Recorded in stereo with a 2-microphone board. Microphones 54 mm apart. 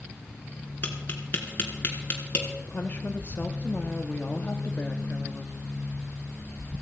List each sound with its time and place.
0.8 s tapping: 35° left (ahead or behind), 3 m
2.6 s a woman speaking: 35° left (ahead or behind), 1.0 m